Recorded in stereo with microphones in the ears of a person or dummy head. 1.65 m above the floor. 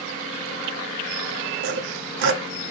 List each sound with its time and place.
1.6 s sawing: 60° right (ahead or behind), 0.6 m